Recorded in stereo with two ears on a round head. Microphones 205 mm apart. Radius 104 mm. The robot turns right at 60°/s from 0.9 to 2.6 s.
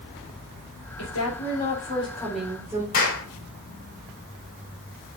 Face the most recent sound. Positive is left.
turn(degrees=40)  # may be behind; listen again after turning